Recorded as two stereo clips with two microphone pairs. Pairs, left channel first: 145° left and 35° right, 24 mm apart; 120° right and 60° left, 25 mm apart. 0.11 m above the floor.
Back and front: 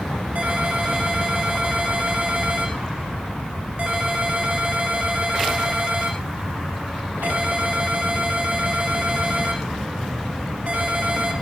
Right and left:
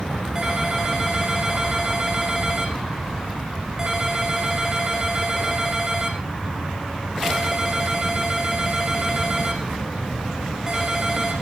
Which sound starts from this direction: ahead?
A ringtone, at 0.3 s.